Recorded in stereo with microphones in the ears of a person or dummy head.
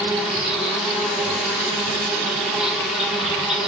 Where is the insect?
5° right (ahead or behind), 1.3 m.